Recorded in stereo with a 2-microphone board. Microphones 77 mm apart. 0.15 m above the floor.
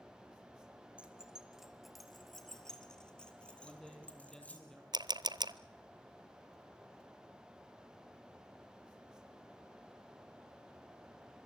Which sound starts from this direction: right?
A camera shutter, at 4.9 s.